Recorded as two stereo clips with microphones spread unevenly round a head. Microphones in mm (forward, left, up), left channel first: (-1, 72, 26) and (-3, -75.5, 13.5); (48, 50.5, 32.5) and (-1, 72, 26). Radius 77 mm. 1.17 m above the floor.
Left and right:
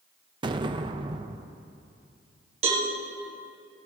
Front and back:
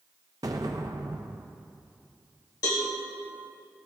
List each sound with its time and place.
0.4 s an explosion: 155° right, 0.6 m
2.6 s a cowbell: 40° right, 2 m